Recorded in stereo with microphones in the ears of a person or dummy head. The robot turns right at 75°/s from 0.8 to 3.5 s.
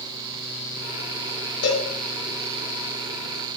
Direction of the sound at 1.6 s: 85° left.